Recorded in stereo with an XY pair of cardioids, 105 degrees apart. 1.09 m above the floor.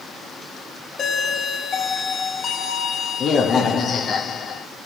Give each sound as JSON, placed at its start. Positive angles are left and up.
{"t": 1.0, "sound": "a doorbell", "azimuth_deg": 50, "distance_m": 3.0}